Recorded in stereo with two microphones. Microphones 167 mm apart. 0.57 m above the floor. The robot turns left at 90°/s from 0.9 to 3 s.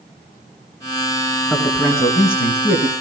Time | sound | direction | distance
1.5 | a man speaking | 170° right | 6.5 m